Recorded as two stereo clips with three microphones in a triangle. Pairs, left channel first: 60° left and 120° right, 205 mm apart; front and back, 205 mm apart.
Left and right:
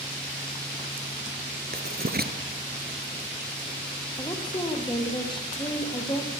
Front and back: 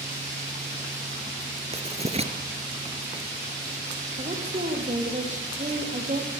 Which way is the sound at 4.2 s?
130° left.